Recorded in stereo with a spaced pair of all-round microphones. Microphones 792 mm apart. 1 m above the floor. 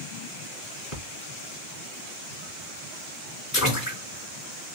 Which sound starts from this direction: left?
A splash, at 0.9 s.